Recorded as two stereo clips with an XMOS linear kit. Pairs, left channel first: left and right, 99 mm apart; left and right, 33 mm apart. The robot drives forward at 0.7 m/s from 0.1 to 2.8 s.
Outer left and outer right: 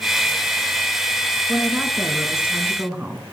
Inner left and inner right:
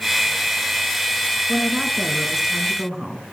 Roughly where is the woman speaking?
Centre.